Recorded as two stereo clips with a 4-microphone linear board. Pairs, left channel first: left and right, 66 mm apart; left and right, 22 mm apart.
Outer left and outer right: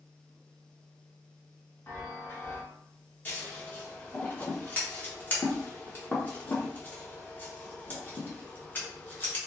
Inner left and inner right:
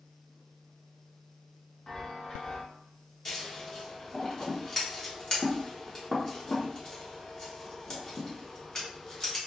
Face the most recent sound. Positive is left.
turn(degrees=30)  # may be behind; listen again after turning